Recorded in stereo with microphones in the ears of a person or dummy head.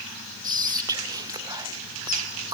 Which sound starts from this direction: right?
Whispering, at 0.4 s.